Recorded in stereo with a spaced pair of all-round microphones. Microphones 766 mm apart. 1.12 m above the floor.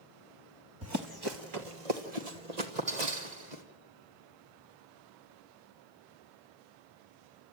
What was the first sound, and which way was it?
Running footsteps, 20° right (ahead or behind).